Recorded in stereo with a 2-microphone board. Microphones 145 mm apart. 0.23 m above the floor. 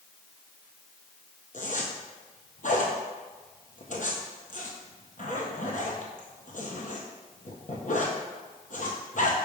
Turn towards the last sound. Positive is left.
turn(degrees=65)  # may be behind; listen again after turning